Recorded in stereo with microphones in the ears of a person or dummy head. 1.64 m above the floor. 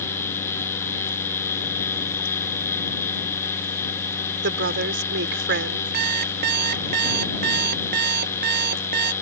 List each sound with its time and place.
4.4 s a woman speaking: 75° right (ahead or behind)
5.9 s an alarm clock: 55° right (ahead or behind)